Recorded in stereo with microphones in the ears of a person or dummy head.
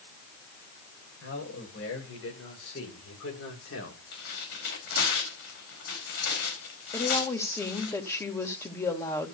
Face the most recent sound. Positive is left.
turn(degrees=15)  # may be behind; listen again after turning